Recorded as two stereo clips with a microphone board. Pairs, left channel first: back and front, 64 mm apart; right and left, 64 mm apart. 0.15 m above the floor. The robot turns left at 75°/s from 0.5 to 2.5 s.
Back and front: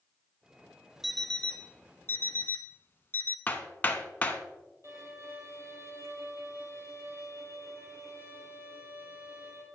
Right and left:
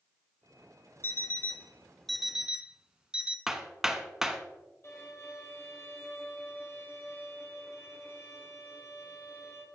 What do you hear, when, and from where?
1.0 s an alarm clock: 90° right, 0.5 m; by 3.4 s 160° left, 0.5 m
3.5 s hammering: 170° left, 0.9 m
4.8 s a violin: 40° right, 3 m